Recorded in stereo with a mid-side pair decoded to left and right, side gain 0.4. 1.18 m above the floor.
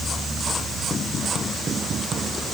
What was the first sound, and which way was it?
Only background noise.